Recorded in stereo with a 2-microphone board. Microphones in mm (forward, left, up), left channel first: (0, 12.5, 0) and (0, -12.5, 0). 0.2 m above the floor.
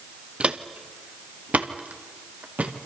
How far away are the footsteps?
About 1.3 m.